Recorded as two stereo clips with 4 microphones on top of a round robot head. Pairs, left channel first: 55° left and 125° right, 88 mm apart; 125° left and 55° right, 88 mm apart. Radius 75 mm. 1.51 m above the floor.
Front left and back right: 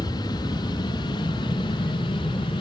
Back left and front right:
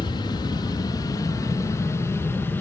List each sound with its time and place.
0.0 s an aircraft: 90° left; by 2.6 s 60° left